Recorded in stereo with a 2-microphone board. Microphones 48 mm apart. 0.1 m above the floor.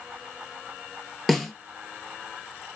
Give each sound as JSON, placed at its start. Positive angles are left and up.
{"t": 1.3, "sound": "a snare drum", "side_deg": 5, "distance_m": 1.1}